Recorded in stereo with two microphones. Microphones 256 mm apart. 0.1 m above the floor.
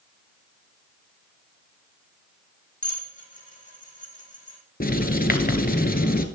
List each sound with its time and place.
2.8 s dishes clattering: 30° left (ahead or behind), 4 m
4.8 s writing: 40° left (ahead or behind), 1.5 m